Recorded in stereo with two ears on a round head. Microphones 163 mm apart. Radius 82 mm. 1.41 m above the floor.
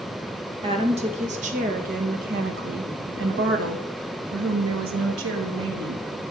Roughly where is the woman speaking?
Right.